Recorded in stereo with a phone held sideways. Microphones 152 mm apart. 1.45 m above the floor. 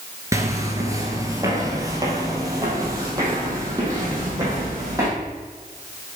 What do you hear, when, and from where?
0.3 s footsteps: 20° right (ahead or behind), 1.5 m